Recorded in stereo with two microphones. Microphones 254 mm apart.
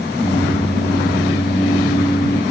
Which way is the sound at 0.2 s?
30° left (ahead or behind).